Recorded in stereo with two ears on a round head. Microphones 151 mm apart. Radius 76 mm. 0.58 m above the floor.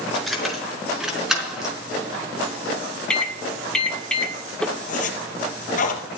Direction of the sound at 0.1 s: Centre (ahead or behind).